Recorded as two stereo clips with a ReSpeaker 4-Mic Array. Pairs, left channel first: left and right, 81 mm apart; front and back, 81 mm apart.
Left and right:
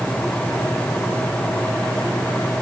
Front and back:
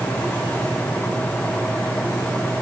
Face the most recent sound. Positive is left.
No sound to turn to.